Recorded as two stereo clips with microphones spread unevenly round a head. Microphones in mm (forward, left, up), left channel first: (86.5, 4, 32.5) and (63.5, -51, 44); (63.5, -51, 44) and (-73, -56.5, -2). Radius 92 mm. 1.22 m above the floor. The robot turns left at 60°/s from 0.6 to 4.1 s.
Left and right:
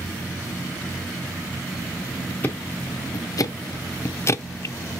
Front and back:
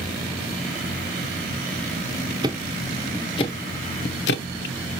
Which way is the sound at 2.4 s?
130° left.